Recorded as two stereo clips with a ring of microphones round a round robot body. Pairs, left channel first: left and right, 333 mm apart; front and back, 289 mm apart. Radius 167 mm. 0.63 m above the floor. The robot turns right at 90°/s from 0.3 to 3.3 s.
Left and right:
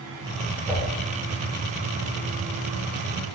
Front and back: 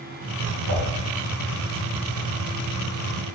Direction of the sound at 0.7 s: Straight behind.